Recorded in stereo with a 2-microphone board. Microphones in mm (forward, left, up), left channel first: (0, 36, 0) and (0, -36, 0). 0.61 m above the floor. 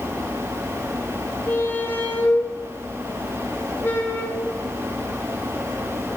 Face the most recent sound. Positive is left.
turn(degrees=25)  # may be behind; listen again after turning